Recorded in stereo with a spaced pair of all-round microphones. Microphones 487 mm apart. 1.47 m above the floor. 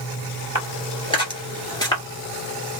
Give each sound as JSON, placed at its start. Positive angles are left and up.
{"t": 0.6, "sound": "footsteps", "side_deg": 10, "distance_m": 1.9}